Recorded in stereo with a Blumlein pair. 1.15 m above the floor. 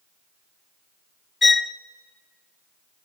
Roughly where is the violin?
Ahead.